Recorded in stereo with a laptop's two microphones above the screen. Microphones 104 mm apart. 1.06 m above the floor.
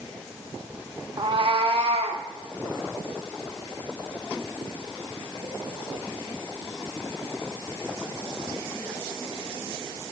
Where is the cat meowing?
45° right (ahead or behind), 0.8 m; by 2.2 s 75° right (ahead or behind), 1.3 m.